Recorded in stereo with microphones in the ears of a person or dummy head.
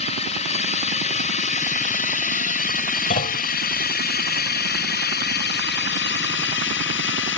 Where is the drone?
35° left (ahead or behind); by 7.4 s 65° left (ahead or behind).